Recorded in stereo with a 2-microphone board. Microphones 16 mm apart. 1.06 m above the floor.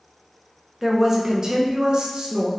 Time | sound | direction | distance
0.8 | a woman speaking | 20° right (ahead or behind) | 0.9 m